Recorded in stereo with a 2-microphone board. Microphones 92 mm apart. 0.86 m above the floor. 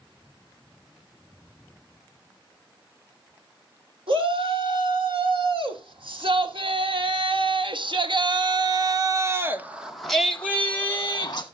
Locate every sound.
4.1 s a shout: 70° right (ahead or behind), 3.5 m; by 11.4 s 35° left (ahead or behind), 1.4 m